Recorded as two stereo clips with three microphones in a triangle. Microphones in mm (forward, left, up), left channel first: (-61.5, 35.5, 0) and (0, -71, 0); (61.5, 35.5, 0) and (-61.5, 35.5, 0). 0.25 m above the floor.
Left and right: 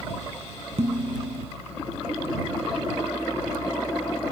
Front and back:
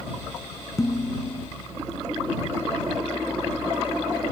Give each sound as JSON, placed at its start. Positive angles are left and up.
{"t": 0.8, "sound": "dishes clattering", "azimuth_deg": -60}